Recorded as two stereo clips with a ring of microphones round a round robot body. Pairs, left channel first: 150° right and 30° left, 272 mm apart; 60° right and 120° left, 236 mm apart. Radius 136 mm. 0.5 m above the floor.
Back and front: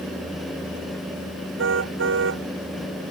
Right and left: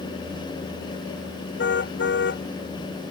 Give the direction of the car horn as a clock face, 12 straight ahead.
1 o'clock.